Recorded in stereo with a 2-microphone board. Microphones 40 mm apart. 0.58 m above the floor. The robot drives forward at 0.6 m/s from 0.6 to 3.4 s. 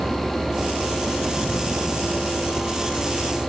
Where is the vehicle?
40° right (ahead or behind); by 3.5 s 35° right (ahead or behind).